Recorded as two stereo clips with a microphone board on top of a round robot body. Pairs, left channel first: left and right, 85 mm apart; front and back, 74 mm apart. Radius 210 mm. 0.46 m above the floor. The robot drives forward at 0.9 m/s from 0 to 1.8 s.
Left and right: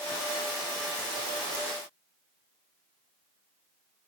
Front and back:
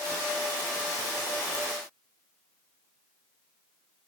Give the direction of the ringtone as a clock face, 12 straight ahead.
1 o'clock.